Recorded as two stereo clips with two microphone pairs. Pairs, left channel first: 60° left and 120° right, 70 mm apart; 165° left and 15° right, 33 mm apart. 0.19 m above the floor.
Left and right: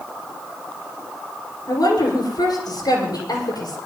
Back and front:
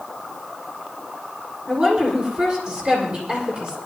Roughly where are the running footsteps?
I don't hear running footsteps.